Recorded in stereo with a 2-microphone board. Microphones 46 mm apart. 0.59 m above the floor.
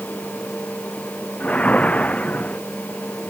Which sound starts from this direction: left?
A whoosh, at 1.4 s.